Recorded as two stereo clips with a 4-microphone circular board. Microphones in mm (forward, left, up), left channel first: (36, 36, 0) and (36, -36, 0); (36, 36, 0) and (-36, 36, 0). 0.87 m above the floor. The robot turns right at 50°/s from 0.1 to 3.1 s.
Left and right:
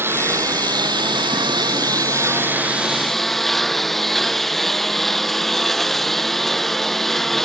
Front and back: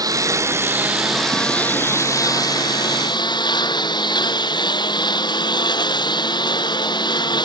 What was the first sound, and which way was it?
A lawn mower, 145° right.